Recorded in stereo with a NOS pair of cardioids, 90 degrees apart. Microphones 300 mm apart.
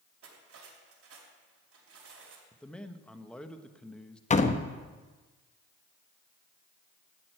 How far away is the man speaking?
About 1.1 m.